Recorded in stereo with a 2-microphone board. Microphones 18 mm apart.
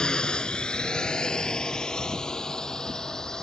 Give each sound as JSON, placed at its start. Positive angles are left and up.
{"t": 0.0, "sound": "a drone", "side_deg": 55}